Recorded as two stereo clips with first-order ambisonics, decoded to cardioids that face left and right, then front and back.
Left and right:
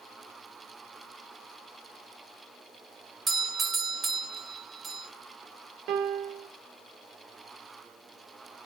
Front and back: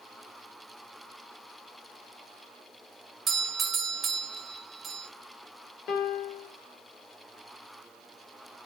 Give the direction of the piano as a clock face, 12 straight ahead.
2 o'clock.